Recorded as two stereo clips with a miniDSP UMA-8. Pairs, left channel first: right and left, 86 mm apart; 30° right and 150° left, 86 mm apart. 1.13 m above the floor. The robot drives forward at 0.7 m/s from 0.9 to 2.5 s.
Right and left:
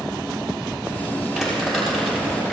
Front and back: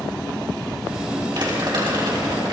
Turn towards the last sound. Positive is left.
turn(degrees=180)